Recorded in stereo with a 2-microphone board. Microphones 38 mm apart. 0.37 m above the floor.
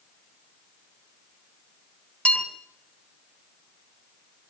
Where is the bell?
30° left (ahead or behind), 3 m.